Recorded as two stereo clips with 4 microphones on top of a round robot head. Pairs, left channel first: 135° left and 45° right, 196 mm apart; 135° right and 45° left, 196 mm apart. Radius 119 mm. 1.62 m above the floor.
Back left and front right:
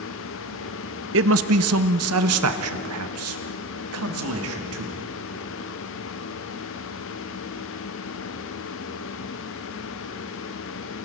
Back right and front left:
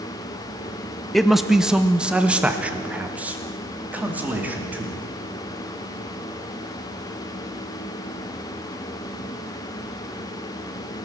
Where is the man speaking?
50° right, 0.7 m; by 5.0 s 40° right, 3.5 m.